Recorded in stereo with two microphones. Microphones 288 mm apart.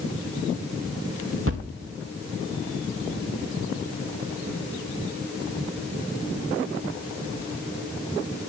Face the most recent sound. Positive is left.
turn(degrees=-50)  # may be behind; listen again after turning